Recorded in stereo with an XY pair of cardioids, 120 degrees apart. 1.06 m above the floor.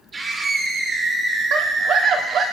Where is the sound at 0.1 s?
40° right, 3 m; by 2.5 s 55° right, 2 m.